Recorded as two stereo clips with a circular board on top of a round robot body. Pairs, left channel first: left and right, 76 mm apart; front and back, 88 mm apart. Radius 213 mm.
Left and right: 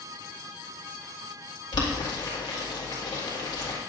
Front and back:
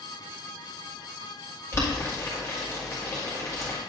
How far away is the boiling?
About 2 m.